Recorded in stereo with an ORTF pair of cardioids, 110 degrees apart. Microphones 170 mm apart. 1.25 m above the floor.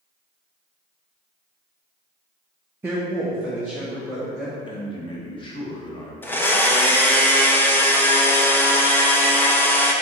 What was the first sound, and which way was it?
A woman speaking, 15° right.